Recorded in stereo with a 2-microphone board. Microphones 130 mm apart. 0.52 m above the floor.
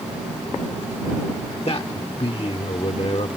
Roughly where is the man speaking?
Left.